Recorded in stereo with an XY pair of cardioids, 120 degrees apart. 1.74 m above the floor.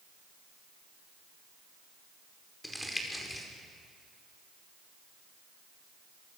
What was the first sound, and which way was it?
Crumpling, 10° left.